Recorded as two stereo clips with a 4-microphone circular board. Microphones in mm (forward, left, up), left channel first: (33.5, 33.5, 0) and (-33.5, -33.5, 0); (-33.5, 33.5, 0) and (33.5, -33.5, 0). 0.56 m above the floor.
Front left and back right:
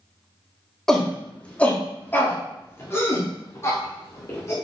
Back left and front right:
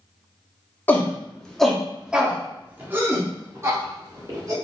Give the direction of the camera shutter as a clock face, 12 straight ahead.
I don't hear a camera shutter.